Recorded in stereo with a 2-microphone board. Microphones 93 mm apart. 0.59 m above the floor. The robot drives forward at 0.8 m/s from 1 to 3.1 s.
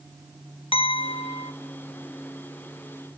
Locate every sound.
0.7 s a clink: 70° left (ahead or behind), 1.1 m; by 1.5 s 65° left (ahead or behind), 1.2 m